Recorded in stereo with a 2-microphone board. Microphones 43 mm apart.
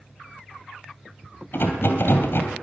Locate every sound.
1.5 s a rattle: 60° left (ahead or behind), 2.5 m